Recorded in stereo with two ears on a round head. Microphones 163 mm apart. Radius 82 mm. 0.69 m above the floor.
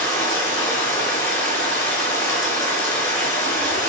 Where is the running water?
15° left (ahead or behind), 3.5 m.